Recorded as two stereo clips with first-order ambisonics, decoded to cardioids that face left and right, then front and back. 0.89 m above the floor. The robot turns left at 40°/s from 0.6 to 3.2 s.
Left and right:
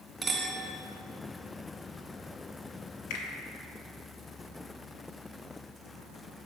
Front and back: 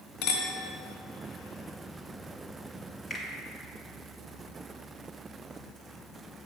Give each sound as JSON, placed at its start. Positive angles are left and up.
{"t": 0.2, "sound": "a clink", "azimuth_deg": -10, "distance_m": 1.2}
{"t": 3.1, "sound": "a finger snap", "azimuth_deg": 75, "distance_m": 1.2}